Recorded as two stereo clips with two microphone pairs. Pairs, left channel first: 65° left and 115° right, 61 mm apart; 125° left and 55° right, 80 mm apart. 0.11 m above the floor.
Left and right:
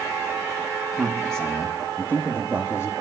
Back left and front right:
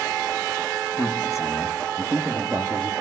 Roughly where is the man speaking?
Behind left.